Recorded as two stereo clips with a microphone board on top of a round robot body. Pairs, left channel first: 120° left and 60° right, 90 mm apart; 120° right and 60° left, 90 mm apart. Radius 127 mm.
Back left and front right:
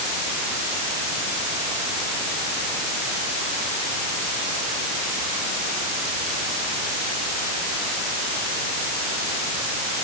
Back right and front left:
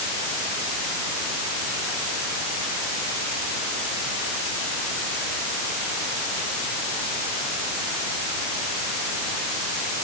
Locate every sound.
Only background noise.